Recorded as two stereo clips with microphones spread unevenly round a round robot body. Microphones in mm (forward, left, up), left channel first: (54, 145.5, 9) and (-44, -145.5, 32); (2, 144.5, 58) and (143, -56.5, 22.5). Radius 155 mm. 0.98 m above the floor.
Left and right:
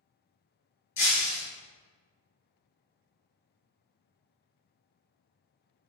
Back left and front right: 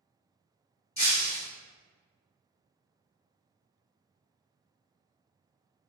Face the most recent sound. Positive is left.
turn(degrees=70)